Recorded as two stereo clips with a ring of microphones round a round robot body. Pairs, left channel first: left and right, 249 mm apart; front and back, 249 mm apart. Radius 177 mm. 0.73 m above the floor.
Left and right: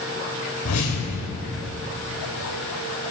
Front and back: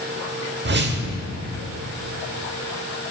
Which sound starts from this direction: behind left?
A whoosh, at 0.7 s.